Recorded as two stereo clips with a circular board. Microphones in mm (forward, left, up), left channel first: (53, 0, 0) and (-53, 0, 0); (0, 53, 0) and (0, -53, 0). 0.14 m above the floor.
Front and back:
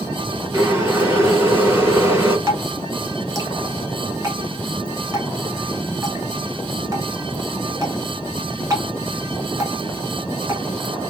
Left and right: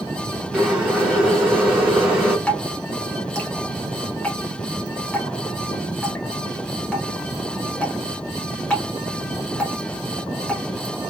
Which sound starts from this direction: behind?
Dripping, at 2.5 s.